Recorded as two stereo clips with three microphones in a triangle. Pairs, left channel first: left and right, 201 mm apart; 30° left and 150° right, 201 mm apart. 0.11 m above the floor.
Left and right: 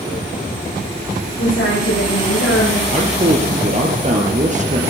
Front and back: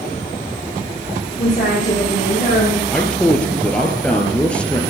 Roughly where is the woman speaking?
Left.